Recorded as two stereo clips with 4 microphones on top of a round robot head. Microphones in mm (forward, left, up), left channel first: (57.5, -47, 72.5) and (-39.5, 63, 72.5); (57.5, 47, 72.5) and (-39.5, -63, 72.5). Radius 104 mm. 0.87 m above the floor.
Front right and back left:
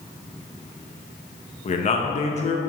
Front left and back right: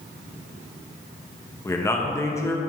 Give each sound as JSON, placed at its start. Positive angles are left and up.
{"t": 1.6, "sound": "a man speaking", "azimuth_deg": -20, "distance_m": 0.9}